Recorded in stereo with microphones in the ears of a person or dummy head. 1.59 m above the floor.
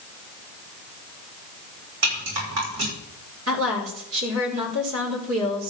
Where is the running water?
I don't hear running water.